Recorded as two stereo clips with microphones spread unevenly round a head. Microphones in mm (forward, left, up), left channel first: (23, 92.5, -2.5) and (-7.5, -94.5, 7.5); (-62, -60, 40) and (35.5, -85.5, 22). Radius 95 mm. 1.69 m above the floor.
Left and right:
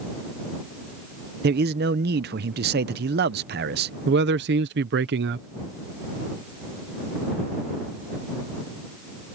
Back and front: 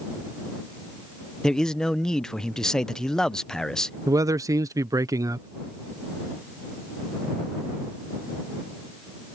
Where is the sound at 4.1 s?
75° right.